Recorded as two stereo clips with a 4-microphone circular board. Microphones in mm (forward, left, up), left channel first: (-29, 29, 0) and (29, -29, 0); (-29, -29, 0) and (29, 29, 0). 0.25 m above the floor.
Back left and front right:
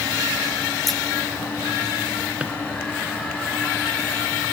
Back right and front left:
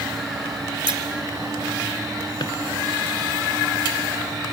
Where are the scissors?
50° left, 1.3 m.